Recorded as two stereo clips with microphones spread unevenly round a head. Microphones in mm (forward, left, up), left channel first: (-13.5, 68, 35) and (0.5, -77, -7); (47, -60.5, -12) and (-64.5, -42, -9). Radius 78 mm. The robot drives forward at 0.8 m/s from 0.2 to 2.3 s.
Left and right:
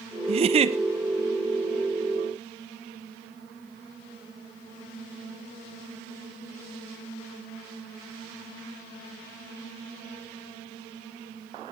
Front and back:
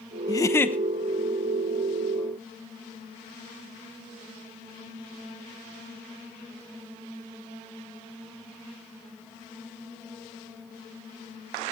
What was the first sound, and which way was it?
A giggle, 60° right.